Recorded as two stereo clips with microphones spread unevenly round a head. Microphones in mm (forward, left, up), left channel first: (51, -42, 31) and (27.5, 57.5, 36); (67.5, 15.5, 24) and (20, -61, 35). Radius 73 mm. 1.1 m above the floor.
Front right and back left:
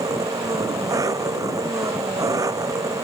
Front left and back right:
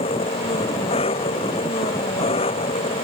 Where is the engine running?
45° left.